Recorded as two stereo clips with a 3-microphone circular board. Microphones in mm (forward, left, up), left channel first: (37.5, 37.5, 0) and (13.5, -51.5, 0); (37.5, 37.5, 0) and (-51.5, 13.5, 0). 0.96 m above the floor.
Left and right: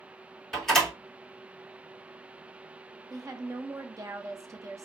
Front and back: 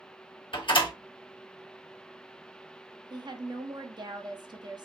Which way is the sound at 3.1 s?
150° right.